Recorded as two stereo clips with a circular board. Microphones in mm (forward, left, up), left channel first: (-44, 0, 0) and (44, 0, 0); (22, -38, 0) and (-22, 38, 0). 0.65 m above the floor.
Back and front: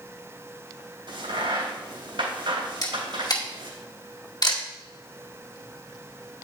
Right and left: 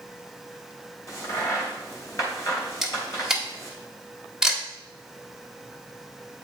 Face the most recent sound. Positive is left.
turn(degrees=-155)